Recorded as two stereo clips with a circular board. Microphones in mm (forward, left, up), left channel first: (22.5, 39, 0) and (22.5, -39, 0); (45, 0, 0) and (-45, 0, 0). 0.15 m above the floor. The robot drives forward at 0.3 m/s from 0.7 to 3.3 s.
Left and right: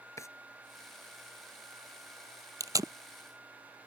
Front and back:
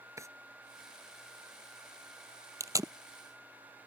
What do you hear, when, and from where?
0.2 s a drawer: 130° left
2.6 s tape being pulled: 130° right